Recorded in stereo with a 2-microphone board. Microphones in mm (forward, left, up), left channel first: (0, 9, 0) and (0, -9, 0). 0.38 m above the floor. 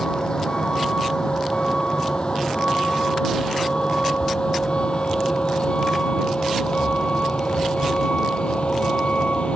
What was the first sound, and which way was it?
A vehicle, 40° left (ahead or behind).